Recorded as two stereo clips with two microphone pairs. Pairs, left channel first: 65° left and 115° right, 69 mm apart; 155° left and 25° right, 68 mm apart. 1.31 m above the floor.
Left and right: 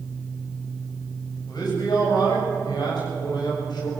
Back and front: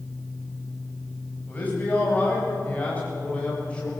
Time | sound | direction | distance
1.5 | a man speaking | 90° left | 7.5 m